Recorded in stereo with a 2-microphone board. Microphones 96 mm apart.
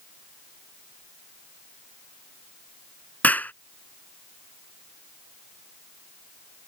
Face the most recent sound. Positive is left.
turn(degrees=15)  # may be behind; listen again after turning